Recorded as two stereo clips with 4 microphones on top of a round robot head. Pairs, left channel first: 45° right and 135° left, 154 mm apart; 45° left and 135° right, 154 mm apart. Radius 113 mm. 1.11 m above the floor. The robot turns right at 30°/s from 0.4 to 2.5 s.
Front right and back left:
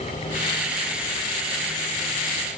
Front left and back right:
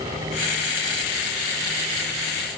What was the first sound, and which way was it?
Only background noise.